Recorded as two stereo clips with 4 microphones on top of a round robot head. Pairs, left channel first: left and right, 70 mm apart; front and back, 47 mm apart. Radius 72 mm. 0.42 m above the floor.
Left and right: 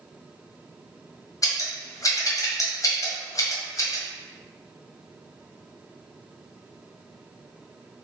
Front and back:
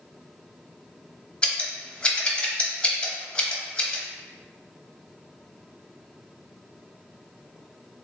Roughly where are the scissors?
Ahead left.